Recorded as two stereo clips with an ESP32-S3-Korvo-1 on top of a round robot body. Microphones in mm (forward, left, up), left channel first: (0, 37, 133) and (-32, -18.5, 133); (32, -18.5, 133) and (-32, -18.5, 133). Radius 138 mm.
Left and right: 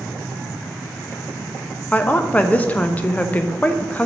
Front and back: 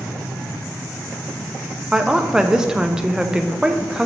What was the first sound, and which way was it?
A woman speaking, 110° left.